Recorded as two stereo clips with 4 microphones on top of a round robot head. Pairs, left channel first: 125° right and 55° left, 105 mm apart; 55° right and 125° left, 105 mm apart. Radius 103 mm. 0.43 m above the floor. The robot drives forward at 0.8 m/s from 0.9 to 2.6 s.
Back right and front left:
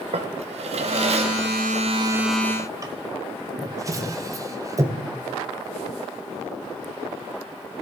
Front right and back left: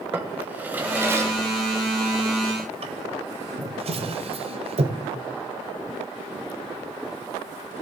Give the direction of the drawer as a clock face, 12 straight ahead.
10 o'clock.